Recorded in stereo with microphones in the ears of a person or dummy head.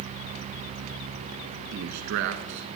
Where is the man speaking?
55° right (ahead or behind), 1.4 m.